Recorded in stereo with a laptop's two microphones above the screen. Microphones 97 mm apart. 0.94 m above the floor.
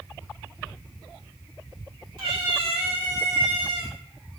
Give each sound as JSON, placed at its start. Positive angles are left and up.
{"t": 2.2, "sound": "a cat meowing", "side_deg": -75, "distance_m": 2.5}